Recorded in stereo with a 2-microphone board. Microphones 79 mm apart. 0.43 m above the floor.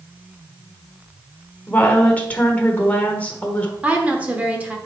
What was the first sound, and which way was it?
A woman speaking, 20° left (ahead or behind).